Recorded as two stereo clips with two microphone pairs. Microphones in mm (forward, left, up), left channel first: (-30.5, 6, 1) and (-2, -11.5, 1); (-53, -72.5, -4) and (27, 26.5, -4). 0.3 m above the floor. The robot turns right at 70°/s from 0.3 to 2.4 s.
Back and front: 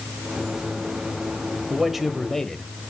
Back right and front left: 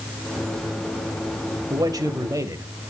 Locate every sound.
1.7 s a man speaking: 30° left, 1.2 m; by 2.7 s 80° left, 1.2 m